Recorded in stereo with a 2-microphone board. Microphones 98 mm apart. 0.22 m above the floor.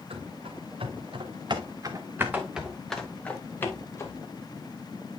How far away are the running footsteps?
About 2 m.